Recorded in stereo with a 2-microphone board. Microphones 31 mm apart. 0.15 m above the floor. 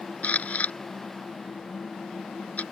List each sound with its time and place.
0.2 s a camera shutter: 60° left (ahead or behind)